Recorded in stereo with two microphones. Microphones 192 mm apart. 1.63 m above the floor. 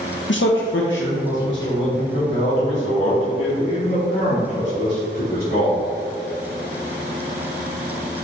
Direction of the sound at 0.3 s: 75° left (ahead or behind).